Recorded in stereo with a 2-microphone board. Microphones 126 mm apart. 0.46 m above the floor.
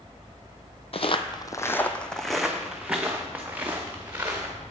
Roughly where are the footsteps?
Left.